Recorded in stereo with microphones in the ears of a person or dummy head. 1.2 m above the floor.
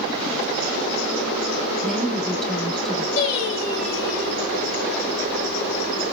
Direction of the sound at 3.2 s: 60° left (ahead or behind).